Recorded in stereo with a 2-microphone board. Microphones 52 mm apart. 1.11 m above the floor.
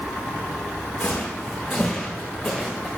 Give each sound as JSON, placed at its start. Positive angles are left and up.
{"t": 1.0, "sound": "footsteps", "side_deg": 20, "distance_m": 4.5}